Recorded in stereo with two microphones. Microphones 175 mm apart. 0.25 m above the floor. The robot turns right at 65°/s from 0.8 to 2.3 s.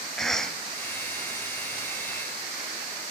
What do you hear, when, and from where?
0.2 s a cough: 5° left (ahead or behind), 1.2 m